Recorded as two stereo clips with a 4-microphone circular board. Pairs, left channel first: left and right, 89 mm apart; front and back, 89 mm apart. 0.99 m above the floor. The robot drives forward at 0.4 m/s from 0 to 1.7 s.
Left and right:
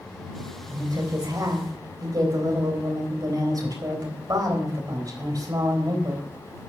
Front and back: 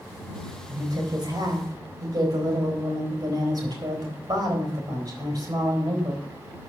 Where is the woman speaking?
130° right, 3.5 m; by 6.2 s 135° right, 4 m.